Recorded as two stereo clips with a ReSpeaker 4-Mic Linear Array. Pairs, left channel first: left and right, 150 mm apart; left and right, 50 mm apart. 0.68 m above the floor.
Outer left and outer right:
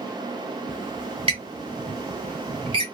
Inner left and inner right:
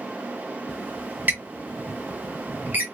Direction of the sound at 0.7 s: 35° right (ahead or behind).